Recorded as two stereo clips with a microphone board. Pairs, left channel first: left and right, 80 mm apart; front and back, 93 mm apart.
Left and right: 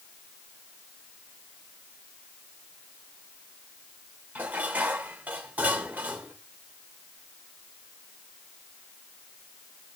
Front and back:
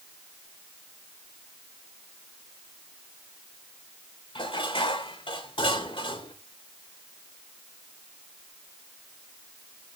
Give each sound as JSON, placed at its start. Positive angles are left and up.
{"t": 4.3, "sound": "dishes clattering", "azimuth_deg": -20, "distance_m": 2.5}